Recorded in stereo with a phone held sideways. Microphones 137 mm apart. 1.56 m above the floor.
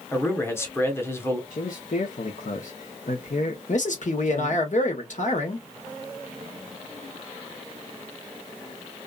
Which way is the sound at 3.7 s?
65° left (ahead or behind).